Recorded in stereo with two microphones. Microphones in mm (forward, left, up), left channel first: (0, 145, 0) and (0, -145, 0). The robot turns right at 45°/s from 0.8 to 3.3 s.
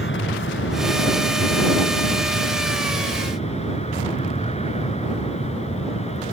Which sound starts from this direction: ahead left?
An aircraft, at 0.0 s.